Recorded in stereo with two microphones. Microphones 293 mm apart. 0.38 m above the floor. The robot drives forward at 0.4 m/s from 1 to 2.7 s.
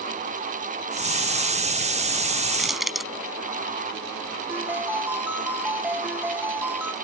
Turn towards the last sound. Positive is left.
turn(degrees=-5)  # may be behind; listen again after turning